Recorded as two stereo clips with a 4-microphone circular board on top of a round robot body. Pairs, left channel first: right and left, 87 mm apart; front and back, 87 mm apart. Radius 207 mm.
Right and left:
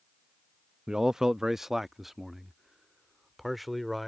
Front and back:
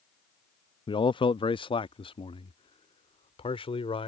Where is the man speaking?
10° left; by 4.1 s straight ahead.